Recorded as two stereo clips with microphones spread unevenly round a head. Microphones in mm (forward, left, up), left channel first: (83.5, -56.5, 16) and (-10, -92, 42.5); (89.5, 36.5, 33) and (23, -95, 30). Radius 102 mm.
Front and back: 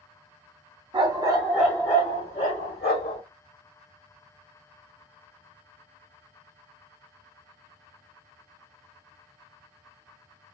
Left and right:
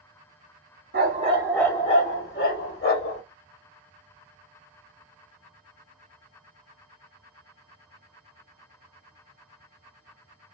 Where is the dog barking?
145° right, 0.8 m; by 3.2 s 70° left, 1.6 m.